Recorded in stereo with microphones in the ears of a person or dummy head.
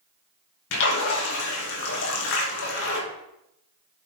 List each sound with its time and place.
0.7 s a splash: 65° left (ahead or behind), 2.5 m